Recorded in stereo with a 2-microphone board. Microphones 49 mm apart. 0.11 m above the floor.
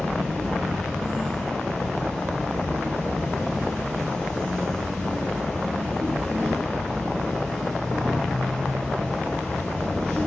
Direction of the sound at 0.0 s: 15° left (ahead or behind).